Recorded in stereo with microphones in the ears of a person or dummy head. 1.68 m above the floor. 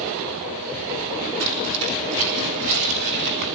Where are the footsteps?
70° right (ahead or behind), 5.5 m; by 3.5 s 55° right (ahead or behind), 7 m.